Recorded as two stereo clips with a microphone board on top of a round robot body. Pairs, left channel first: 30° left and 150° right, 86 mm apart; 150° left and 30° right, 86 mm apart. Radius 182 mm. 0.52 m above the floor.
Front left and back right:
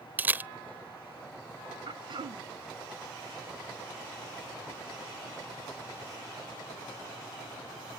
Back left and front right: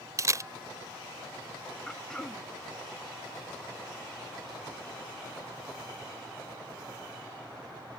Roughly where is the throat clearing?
Behind right.